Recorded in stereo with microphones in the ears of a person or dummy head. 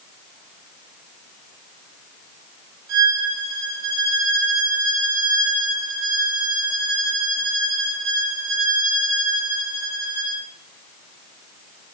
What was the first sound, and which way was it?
A violin, 75° right (ahead or behind).